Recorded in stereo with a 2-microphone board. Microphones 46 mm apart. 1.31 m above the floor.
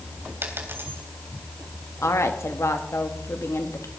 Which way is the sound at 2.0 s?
85° left.